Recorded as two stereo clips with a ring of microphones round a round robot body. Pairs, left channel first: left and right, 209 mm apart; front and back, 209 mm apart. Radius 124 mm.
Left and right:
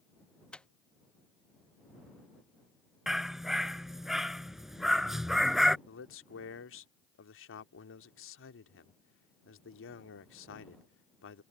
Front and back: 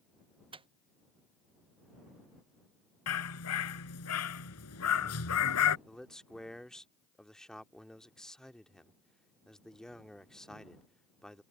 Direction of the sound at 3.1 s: Straight ahead.